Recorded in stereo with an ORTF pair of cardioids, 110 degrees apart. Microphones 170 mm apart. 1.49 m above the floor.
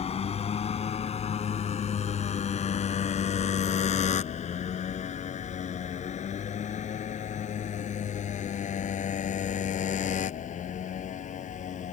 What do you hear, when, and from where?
0.0 s a motorcycle: 40° left; by 11.9 s 45° left